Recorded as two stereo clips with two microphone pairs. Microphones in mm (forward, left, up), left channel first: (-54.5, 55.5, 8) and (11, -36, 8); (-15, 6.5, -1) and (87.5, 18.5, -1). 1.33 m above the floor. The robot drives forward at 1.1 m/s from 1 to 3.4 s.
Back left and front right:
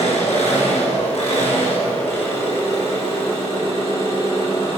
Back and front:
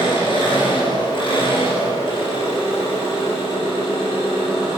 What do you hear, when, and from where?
0.0 s an engine running: 150° left, 4.5 m; by 4.8 s 160° left, 7 m